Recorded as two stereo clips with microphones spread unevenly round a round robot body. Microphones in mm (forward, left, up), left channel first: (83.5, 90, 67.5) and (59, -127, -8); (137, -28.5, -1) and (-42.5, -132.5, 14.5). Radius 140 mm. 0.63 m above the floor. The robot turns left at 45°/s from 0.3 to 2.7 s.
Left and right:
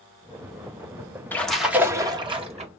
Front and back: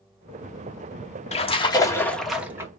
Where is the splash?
15° right, 1.1 m; by 2.7 s 75° right, 1.1 m.